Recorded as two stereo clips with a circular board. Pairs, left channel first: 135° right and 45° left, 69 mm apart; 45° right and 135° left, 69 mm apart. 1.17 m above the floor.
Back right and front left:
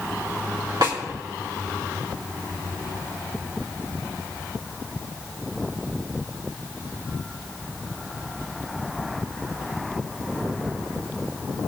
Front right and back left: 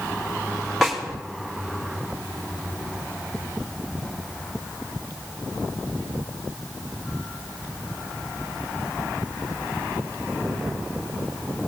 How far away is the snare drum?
About 3 m.